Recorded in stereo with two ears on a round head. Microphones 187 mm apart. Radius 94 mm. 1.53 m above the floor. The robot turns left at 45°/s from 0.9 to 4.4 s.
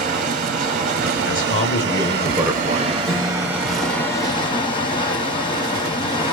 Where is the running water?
50° right, 1.1 m; by 6.3 s 150° left, 1.1 m.